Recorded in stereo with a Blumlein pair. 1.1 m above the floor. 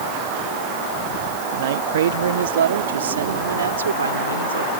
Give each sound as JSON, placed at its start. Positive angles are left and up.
{"t": 1.5, "sound": "a man speaking", "azimuth_deg": -55}